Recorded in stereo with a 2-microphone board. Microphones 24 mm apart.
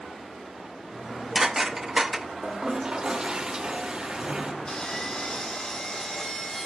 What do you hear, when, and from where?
0.9 s dishes clattering: 25° right (ahead or behind), 0.8 m
2.4 s a toilet flushing: 35° right (ahead or behind), 1.5 m
4.7 s sawing: 40° left (ahead or behind), 4.5 m